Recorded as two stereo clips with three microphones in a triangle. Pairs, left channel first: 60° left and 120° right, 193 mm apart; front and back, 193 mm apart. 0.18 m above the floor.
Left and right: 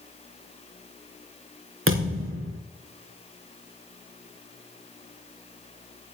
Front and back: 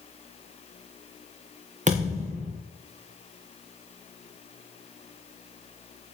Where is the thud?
125° right, 4 m.